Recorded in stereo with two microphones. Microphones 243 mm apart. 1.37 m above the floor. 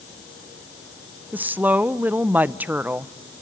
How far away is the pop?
I don't hear a pop.